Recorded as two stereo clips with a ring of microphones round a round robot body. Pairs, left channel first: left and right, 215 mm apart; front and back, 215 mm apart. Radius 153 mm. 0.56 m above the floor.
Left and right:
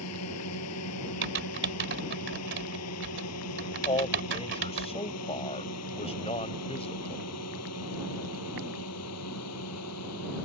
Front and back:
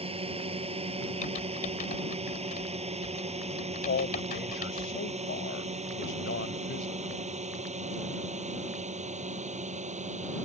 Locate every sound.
0.0 s a drone: 115° left; by 10.4 s 125° left
1.2 s typing on a keyboard: 60° right
3.9 s a man speaking: 30° left